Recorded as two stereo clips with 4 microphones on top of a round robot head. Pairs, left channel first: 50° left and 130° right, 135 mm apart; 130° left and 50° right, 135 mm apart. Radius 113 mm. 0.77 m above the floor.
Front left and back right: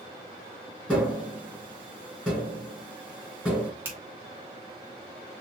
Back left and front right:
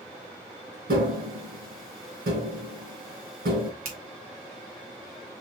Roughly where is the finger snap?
Ahead right.